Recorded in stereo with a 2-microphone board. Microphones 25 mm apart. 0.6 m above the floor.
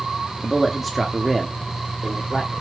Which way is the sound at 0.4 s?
5° left (ahead or behind).